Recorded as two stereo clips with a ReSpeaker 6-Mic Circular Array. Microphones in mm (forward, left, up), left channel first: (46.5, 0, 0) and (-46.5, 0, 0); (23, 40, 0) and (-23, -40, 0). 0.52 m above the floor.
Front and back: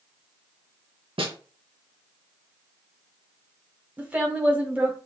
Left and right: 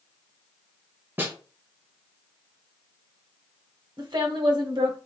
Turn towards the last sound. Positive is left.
turn(degrees=-110)